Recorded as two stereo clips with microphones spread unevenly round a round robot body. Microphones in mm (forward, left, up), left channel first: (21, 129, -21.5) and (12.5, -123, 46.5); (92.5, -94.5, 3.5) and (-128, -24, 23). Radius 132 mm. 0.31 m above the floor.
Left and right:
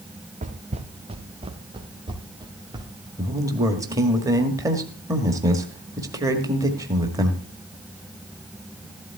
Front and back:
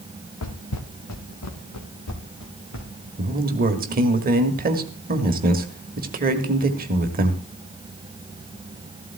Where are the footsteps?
35° right, 1.5 m; by 3.1 s 20° right, 4 m.